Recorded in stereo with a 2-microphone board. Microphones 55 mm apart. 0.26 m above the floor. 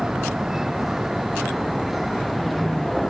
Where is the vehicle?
10° right (ahead or behind); by 3.1 s centre (ahead or behind).